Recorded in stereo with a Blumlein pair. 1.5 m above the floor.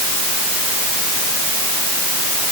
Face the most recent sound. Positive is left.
No sound to turn to.